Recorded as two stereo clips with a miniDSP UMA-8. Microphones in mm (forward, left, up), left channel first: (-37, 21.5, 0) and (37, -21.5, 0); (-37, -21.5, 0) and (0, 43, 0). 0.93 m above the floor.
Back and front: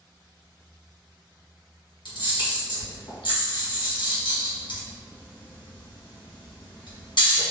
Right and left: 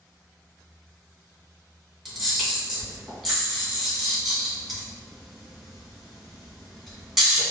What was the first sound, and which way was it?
A camera shutter, 145° left.